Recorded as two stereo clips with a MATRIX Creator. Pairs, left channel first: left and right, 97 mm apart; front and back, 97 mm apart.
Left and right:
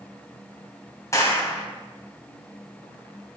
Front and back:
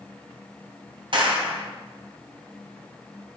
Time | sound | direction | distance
1.1 | a clap | 150° left | 2.5 m